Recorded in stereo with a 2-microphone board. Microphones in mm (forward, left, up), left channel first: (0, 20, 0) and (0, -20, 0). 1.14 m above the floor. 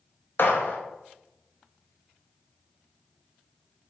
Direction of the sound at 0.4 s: 60° left (ahead or behind).